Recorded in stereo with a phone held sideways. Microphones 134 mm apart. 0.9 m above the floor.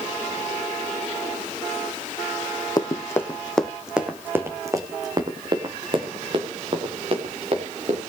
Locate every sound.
2.8 s running footsteps: 30° left (ahead or behind), 1.8 m; by 8.0 s 50° right (ahead or behind), 5.5 m